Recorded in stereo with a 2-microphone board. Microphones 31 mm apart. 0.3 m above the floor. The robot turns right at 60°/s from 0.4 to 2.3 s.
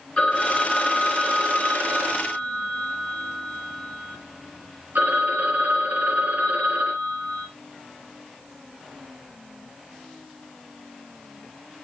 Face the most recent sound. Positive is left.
turn(degrees=-95)